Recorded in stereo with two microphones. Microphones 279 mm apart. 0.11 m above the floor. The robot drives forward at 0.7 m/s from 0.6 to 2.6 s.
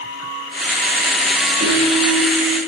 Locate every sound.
1.6 s a piano: 50° right (ahead or behind), 2.5 m